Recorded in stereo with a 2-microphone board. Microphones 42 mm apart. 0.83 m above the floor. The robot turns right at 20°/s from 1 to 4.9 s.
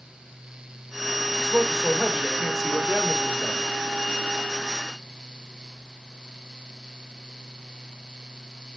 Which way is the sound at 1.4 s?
15° right.